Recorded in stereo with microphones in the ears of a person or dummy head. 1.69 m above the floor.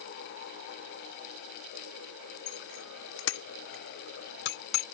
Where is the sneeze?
I don't hear a sneeze.